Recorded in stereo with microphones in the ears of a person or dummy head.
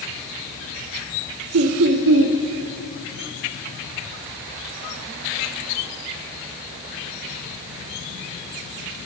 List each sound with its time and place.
1.5 s laughter: 65° right (ahead or behind), 0.6 m